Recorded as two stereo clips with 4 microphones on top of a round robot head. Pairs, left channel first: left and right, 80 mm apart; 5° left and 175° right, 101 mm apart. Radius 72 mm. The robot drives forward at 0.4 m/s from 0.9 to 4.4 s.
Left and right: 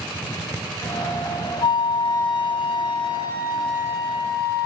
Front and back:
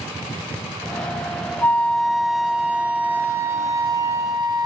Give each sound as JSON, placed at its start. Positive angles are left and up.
{"t": 1.6, "sound": "a flute", "azimuth_deg": 80, "distance_m": 1.1}